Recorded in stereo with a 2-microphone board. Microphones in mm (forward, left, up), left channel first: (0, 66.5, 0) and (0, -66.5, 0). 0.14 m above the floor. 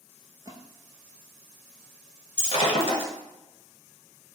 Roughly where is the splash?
Right.